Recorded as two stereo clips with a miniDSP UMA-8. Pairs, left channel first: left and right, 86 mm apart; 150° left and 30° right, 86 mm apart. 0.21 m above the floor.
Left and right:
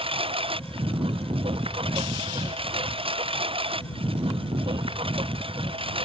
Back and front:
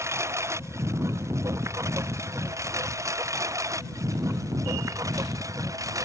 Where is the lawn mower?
90° right; by 6.1 s 80° right.